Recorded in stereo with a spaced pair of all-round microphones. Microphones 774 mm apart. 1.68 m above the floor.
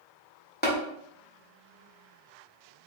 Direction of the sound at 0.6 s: 10° left (ahead or behind).